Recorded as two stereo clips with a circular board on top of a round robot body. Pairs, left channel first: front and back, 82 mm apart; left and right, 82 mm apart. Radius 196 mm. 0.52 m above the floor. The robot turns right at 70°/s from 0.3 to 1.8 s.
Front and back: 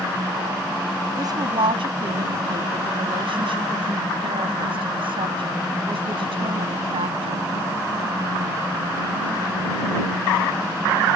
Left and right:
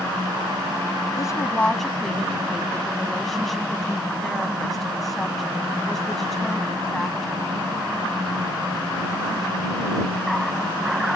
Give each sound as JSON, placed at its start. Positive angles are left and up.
{"t": 1.2, "sound": "a woman speaking", "azimuth_deg": 135}